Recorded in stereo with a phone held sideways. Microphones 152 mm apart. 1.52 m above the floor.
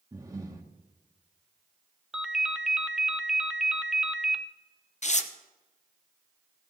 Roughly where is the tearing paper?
Left.